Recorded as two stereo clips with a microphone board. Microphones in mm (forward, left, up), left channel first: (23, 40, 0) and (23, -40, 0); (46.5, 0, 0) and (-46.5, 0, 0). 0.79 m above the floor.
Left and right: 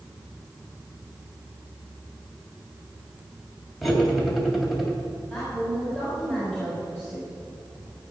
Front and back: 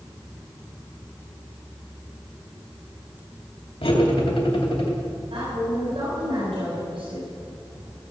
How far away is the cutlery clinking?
About 2.5 m.